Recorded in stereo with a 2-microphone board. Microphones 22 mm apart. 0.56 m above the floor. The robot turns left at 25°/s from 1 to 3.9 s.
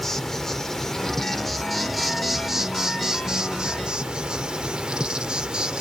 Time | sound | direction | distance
0.0 | an insect | 25° left | 0.9 m